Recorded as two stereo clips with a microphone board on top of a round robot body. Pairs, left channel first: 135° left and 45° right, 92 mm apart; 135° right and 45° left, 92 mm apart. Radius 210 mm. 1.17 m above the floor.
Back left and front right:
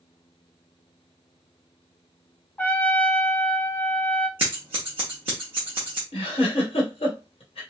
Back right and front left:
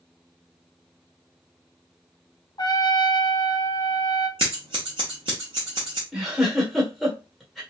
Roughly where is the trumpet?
Behind right.